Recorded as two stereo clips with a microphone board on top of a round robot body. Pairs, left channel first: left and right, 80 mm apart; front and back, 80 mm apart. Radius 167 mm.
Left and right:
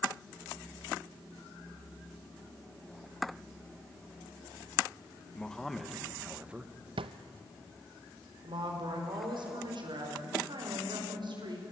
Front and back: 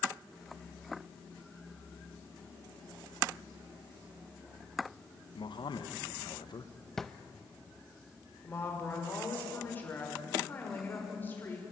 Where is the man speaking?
10° left, 1.7 m; by 6.7 s 20° right, 1.5 m.